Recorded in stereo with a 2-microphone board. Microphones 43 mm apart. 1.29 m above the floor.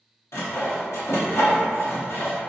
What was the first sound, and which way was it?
Sawing, 75° left (ahead or behind).